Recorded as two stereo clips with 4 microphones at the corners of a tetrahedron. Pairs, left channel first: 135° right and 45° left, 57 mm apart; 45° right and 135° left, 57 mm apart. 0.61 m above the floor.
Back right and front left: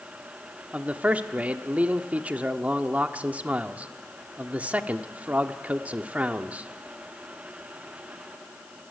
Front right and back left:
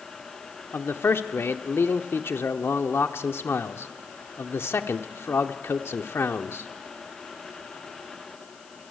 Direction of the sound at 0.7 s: 15° right.